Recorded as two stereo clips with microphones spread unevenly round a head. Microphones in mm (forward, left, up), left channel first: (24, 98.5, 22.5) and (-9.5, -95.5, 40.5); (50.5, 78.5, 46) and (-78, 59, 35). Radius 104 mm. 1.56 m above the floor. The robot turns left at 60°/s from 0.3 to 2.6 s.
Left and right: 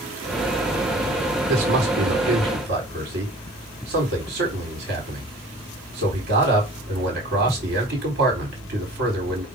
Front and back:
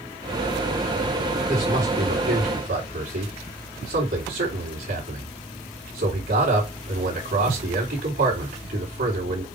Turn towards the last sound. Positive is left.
turn(degrees=-140)